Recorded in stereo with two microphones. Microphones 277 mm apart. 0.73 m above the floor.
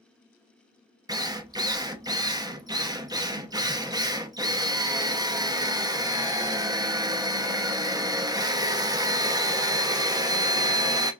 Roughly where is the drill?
Centre.